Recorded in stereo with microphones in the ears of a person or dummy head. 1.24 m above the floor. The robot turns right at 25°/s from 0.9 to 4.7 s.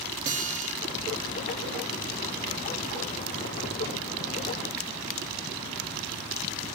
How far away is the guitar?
About 1.2 m.